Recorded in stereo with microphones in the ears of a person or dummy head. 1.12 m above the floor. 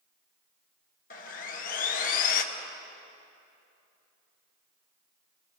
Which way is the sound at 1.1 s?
45° left (ahead or behind).